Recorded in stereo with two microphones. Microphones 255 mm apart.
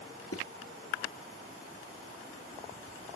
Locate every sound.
0.3 s footsteps: 65° left (ahead or behind), 3.5 m